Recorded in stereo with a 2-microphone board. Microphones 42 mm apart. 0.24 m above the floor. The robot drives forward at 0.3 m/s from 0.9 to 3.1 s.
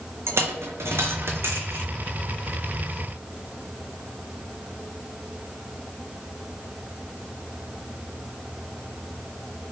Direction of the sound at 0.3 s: 75° right (ahead or behind).